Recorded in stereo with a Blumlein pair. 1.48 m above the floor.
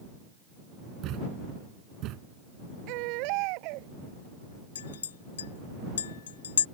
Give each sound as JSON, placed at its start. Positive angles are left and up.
{"t": 1.0, "sound": "a thud", "azimuth_deg": -35}
{"t": 2.9, "sound": "a baby crying", "azimuth_deg": -45}
{"t": 4.8, "sound": "a clink", "azimuth_deg": 65}